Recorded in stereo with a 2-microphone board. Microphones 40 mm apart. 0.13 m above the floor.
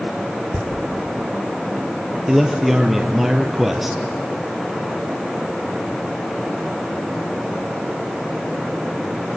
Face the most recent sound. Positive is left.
turn(degrees=-5)  # may be behind; listen again after turning